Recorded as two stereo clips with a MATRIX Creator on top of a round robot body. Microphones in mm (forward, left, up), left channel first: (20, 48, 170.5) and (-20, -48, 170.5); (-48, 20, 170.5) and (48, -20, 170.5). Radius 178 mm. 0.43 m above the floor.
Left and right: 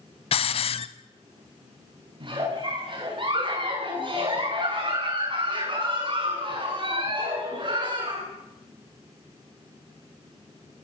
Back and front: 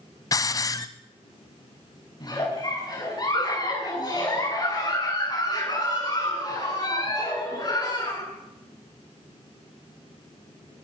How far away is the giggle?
About 8.5 m.